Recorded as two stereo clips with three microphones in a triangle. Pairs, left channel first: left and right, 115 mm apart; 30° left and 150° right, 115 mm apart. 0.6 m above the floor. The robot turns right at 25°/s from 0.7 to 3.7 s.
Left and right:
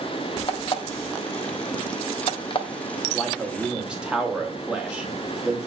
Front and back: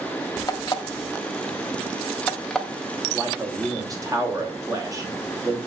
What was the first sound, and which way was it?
An alarm clock, 70° left.